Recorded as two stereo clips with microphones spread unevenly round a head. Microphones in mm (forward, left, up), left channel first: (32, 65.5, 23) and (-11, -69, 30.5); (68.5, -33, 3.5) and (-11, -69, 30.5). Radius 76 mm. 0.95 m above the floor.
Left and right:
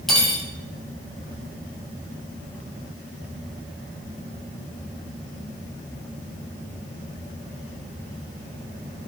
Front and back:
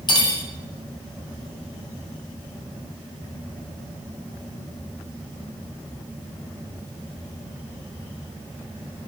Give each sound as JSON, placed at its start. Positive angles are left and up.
{"t": 0.1, "sound": "cutlery clinking", "azimuth_deg": -15, "distance_m": 0.8}